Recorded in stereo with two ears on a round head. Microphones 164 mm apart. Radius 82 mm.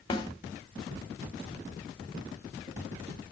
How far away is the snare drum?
About 1.4 m.